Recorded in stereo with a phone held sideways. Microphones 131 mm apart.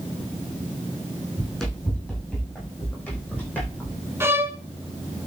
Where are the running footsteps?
Centre (ahead or behind), 6 m; by 4.0 s 15° left (ahead or behind), 6.5 m.